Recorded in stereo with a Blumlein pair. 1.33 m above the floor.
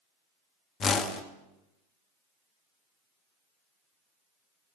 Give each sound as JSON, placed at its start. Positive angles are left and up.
{"t": 0.8, "sound": "a whoosh", "azimuth_deg": 20, "distance_m": 1.0}